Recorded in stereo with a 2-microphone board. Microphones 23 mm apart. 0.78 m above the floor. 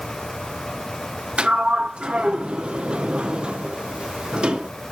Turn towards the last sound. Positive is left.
turn(degrees=-50)  # may be behind; listen again after turning